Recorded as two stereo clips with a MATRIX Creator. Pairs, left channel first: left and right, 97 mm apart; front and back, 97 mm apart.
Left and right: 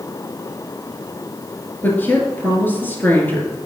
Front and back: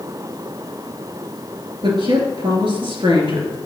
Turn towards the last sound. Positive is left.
turn(degrees=160)